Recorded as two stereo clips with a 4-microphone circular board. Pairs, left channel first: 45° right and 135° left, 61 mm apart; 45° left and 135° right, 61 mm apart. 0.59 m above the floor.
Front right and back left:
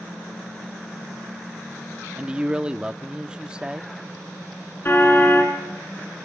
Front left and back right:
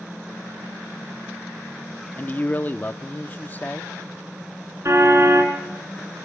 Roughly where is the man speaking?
Left.